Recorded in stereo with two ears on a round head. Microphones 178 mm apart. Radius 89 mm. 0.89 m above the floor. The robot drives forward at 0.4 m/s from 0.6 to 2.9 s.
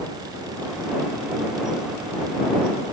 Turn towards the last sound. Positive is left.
No sound to turn to.